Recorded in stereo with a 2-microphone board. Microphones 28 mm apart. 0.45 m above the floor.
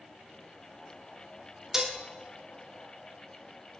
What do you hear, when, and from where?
1.7 s dishes clattering: 15° right (ahead or behind), 0.9 m